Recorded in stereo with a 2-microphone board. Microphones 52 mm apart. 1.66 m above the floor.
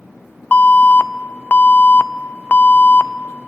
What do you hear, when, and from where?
0.5 s an alarm: 35° left (ahead or behind), 0.6 m